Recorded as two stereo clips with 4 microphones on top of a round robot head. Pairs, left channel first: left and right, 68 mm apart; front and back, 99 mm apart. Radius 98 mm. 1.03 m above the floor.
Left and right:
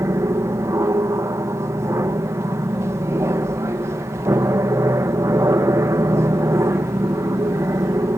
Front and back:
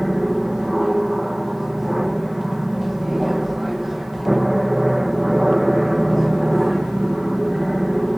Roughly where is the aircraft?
Right.